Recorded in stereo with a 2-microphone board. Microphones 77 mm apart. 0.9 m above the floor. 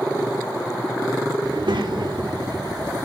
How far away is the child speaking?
About 0.9 m.